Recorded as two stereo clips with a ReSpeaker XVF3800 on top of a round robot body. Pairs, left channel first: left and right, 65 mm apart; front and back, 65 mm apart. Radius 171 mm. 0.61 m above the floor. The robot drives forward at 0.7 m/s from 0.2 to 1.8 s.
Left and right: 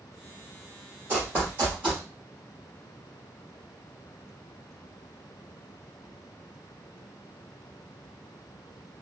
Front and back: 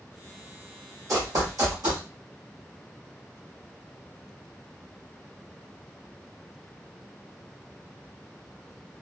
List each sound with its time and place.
1.1 s running footsteps: 150° right, 1.3 m; by 2.0 s 155° right, 1.7 m